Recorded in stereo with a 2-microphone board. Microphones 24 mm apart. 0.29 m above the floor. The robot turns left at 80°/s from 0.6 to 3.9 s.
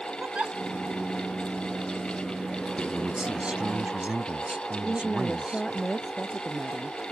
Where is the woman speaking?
5° left (ahead or behind).